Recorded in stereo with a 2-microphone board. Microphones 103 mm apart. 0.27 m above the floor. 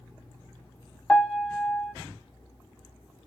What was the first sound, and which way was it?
A piano, 10° left (ahead or behind).